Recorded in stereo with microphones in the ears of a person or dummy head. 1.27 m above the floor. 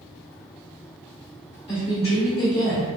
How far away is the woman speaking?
About 2.0 m.